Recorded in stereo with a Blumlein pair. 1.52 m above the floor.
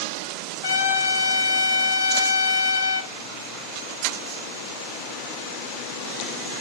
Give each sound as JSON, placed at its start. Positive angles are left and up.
{"t": 0.6, "sound": "a trumpet", "azimuth_deg": 60, "distance_m": 0.9}